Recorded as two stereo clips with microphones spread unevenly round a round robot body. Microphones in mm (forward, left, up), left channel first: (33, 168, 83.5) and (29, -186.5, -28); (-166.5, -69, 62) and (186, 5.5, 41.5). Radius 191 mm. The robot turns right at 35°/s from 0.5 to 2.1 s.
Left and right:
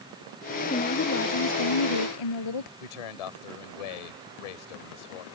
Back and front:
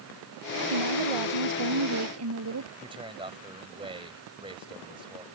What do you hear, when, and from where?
0.7 s a woman speaking: 15° left; by 2.7 s 65° left
2.8 s a man speaking: 90° left